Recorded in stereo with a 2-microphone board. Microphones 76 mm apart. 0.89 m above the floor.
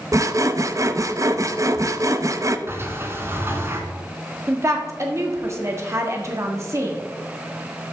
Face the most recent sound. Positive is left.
turn(degrees=-40)  # may be behind; listen again after turning